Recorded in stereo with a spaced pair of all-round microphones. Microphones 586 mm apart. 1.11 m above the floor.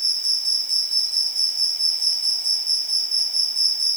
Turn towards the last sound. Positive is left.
turn(degrees=-50)  # may be behind; listen again after turning